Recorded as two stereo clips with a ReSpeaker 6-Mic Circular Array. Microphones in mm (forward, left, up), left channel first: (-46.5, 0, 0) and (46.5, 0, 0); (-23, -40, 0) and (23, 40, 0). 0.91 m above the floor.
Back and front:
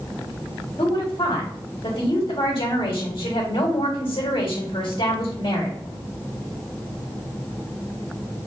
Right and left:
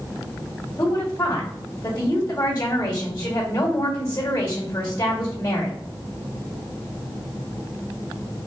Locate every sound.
0.8 s a woman speaking: 175° right, 1.5 m